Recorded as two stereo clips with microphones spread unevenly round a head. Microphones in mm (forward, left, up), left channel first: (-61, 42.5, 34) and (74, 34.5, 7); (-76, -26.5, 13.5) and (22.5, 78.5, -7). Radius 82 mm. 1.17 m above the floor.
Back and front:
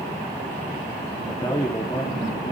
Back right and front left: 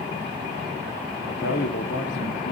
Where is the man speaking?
115° right, 2.5 m.